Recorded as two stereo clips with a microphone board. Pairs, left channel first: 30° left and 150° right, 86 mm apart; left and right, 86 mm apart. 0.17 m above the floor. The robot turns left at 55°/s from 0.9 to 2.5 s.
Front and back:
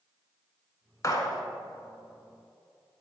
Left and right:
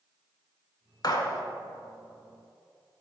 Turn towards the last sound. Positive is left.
turn(degrees=-10)